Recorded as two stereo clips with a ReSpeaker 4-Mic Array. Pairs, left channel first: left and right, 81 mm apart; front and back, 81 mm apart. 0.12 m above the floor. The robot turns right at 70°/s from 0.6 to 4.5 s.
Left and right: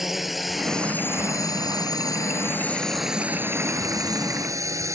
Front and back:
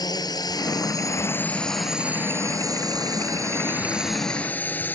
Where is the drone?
5° right; by 5.0 s 60° right.